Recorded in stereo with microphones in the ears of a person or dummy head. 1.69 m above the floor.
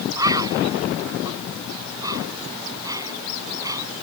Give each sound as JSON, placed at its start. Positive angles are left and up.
{"t": 0.2, "sound": "a bird", "side_deg": -20}